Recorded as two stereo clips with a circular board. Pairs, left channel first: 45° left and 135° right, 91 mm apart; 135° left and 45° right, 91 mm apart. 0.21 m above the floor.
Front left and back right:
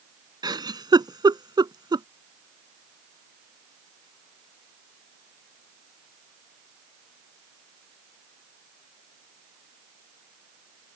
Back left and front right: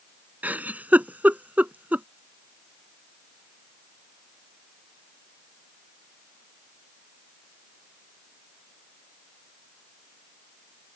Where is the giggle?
115° right.